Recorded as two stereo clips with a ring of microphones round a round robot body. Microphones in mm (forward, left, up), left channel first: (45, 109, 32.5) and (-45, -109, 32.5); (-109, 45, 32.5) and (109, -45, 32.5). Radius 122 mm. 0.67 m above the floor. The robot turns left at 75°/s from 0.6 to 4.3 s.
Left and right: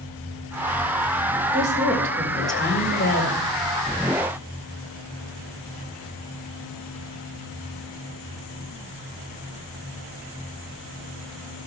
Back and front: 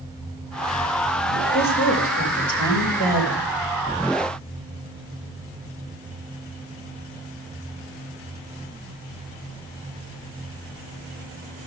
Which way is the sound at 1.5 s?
130° right.